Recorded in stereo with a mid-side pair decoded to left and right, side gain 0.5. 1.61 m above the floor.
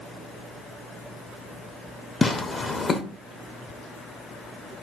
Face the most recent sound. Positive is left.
turn(degrees=35)